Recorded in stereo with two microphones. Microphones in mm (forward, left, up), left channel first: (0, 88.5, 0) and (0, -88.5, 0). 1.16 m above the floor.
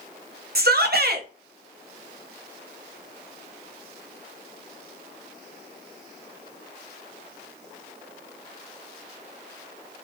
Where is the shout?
65° right (ahead or behind), 0.6 m.